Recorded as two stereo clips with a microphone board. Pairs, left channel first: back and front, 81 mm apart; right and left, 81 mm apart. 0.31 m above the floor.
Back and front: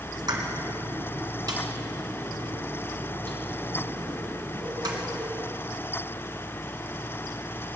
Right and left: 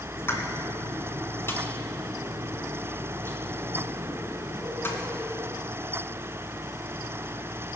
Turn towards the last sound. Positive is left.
turn(degrees=-30)